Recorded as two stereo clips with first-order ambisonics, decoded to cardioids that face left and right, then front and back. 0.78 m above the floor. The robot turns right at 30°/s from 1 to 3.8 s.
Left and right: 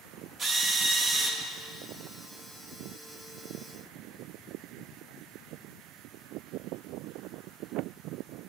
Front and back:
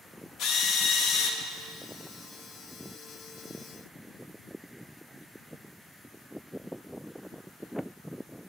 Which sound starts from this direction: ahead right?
A drill, at 0.4 s.